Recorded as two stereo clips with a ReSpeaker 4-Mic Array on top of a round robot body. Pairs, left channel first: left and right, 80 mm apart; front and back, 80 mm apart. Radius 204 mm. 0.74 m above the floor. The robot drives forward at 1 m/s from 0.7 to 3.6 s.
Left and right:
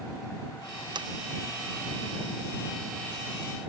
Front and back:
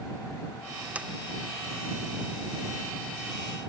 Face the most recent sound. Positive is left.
turn(degrees=-145)